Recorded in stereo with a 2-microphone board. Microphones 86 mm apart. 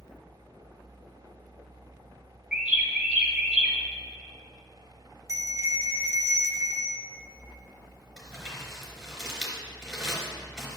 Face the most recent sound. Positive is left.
turn(degrees=5)  # may be behind; listen again after turning